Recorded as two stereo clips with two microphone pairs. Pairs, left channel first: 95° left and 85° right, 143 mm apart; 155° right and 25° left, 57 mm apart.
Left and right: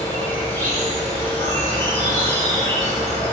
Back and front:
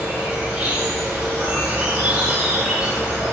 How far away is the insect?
About 1.1 m.